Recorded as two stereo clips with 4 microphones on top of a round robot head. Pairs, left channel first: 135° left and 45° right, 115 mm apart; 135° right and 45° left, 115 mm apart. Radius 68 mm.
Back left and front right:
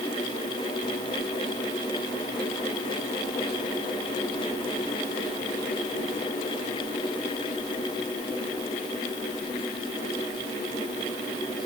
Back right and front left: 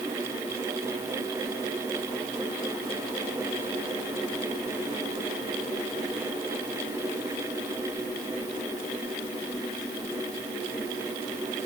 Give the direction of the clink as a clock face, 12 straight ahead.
No clink in this recording.